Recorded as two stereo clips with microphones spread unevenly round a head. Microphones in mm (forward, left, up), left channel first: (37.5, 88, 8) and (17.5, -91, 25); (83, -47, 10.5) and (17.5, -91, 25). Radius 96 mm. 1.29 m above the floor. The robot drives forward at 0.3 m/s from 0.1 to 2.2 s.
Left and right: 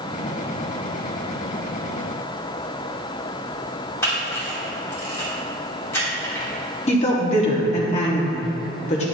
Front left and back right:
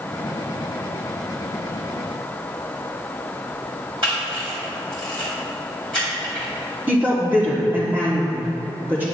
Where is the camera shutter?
160° left, 1.9 m.